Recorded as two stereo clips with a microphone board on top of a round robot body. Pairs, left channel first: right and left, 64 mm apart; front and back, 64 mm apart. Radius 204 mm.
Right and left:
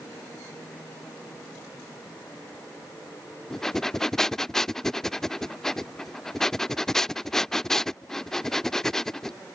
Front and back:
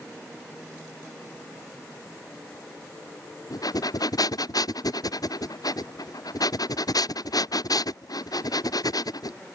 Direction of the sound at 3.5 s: 5° right.